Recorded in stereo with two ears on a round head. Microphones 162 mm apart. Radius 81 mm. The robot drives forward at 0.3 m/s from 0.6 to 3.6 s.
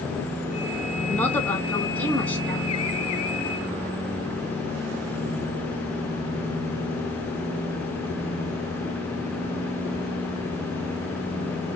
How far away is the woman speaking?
About 1.1 m.